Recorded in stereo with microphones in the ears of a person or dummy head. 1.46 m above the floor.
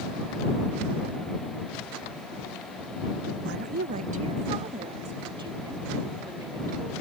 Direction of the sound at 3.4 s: 70° right (ahead or behind).